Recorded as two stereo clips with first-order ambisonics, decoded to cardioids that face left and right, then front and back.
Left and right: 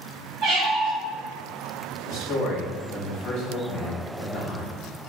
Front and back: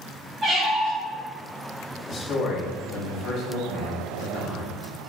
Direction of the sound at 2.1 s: 45° left.